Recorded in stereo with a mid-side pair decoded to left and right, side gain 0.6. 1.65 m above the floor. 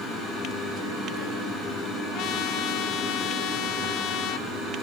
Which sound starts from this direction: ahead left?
A trumpet, at 2.1 s.